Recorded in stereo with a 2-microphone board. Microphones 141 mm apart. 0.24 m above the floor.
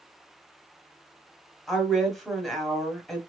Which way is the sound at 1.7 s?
Centre (ahead or behind).